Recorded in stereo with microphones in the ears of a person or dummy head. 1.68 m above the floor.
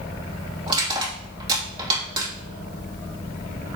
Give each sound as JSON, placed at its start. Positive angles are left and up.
{"t": 0.7, "sound": "crushing", "side_deg": -30, "distance_m": 3.5}